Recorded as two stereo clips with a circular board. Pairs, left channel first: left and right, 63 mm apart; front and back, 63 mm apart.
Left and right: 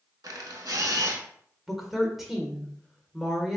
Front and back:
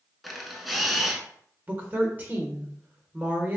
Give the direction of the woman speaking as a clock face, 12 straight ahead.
6 o'clock.